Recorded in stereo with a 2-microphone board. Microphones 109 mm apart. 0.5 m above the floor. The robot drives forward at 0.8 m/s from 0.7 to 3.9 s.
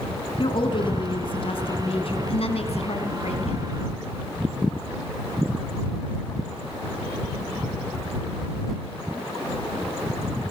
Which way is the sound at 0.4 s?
50° left (ahead or behind).